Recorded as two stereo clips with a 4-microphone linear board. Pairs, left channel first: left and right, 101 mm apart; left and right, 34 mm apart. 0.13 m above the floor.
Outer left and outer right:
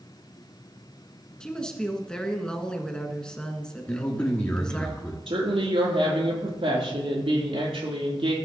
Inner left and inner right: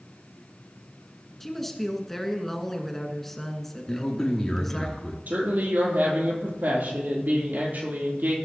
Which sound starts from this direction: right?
A woman speaking, at 5.3 s.